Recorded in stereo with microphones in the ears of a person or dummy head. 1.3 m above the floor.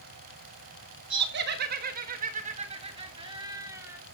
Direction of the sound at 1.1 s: 65° right (ahead or behind).